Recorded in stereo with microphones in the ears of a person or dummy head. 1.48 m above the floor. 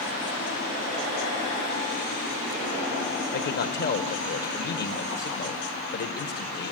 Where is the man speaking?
50° left (ahead or behind), 1.6 m.